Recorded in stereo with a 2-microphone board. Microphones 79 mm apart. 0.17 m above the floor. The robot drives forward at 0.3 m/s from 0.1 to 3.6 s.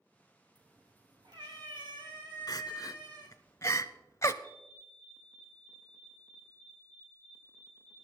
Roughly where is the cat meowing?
Right.